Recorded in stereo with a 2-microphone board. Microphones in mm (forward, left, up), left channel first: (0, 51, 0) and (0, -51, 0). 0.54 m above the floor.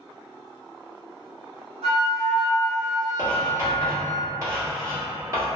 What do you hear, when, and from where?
1.8 s a flute: 85° right, 0.9 m
3.2 s writing: 30° right (ahead or behind), 1.3 m